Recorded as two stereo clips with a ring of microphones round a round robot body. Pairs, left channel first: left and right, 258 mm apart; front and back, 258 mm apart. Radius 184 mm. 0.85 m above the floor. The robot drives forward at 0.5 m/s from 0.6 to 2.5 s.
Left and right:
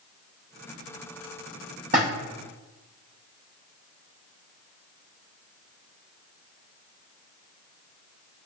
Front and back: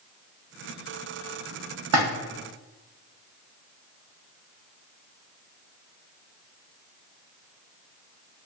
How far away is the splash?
About 0.6 m.